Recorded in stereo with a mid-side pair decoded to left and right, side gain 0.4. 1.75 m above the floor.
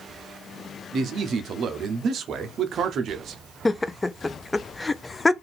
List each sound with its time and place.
0.9 s a man speaking: 65° right, 0.9 m
3.6 s laughter: 25° left, 0.6 m